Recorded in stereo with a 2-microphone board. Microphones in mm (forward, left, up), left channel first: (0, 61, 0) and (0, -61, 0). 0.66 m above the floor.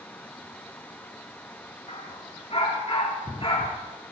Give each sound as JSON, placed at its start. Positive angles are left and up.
{"t": 1.9, "sound": "a dog barking", "side_deg": 60, "distance_m": 3.5}